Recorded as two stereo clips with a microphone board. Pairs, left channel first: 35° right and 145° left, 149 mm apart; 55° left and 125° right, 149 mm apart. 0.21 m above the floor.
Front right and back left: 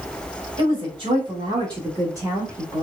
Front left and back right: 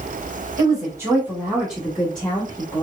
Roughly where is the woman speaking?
Behind.